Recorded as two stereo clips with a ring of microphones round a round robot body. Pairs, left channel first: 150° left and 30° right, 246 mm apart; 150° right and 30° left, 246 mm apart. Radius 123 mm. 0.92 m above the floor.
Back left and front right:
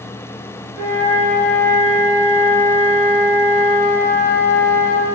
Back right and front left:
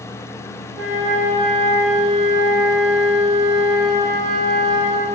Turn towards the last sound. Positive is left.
turn(degrees=-60)